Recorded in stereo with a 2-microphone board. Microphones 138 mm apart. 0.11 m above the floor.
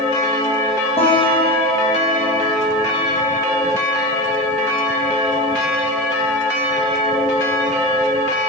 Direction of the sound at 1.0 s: 45° left (ahead or behind).